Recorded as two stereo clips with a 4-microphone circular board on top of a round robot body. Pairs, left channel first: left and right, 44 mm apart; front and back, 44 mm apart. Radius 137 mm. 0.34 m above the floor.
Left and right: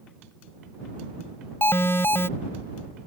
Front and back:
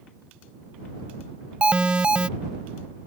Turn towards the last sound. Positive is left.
turn(degrees=115)